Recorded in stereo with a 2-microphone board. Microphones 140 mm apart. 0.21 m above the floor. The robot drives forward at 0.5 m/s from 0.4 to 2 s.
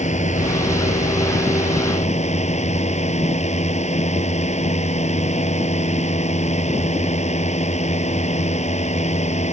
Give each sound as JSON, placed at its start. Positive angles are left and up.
{"t": 0.0, "sound": "a drone", "side_deg": 55}